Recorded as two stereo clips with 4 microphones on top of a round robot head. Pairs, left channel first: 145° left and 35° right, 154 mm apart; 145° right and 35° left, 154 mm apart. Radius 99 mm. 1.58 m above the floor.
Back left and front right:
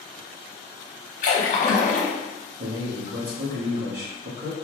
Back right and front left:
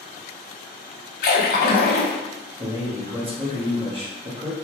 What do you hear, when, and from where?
1.2 s a splash: 170° right, 0.7 m
2.6 s a man speaking: 20° right, 1.2 m